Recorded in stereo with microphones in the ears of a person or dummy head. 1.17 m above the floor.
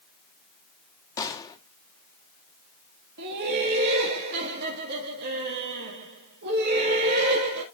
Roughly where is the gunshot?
Centre.